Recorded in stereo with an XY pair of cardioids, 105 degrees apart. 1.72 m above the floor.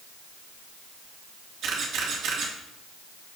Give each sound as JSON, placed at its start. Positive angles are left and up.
{"t": 1.6, "sound": "a camera shutter", "azimuth_deg": -70, "distance_m": 3.0}